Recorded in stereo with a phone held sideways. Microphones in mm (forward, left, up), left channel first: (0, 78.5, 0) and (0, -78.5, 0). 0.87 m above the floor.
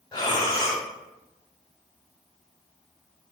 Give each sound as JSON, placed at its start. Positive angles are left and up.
{"t": 0.1, "sound": "breathing", "side_deg": 25, "distance_m": 1.0}